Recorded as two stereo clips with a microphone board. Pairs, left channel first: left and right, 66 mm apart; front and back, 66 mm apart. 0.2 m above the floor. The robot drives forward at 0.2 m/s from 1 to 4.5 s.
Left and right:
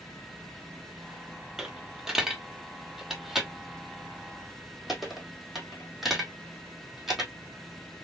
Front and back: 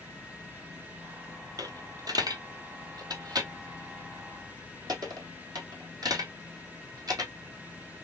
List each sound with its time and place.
1.6 s a dropped coin: 175° right, 0.8 m